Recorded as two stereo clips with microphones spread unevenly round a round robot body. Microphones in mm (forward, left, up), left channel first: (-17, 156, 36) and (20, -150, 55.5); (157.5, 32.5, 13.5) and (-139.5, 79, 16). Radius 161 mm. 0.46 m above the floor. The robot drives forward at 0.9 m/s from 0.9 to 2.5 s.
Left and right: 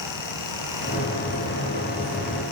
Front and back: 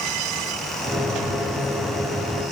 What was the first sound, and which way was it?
Only background noise.